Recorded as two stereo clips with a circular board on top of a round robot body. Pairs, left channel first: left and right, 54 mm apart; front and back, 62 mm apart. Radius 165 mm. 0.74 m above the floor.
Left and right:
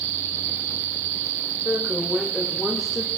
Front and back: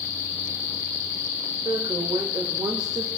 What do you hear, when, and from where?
1.6 s a woman speaking: straight behind, 4 m; by 3.1 s 175° left, 3 m